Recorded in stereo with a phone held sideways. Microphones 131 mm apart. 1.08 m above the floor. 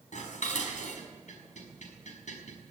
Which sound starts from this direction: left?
Dishes clattering, at 0.1 s.